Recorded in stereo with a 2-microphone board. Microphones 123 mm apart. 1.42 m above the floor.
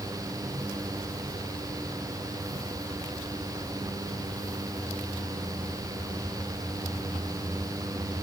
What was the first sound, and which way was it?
Only background noise.